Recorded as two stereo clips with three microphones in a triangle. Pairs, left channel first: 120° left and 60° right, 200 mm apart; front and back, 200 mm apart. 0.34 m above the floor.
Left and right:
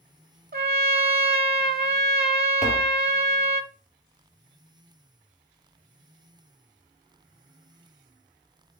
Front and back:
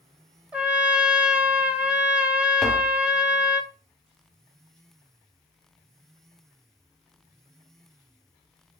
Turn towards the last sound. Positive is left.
turn(degrees=85)